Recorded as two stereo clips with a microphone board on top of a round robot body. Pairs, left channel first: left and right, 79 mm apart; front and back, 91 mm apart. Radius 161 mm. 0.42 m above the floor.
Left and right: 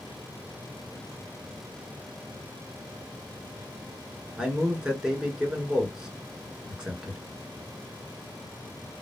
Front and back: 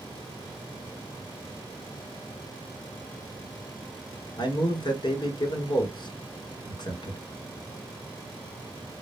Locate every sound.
4.4 s a man speaking: 15° right, 1.6 m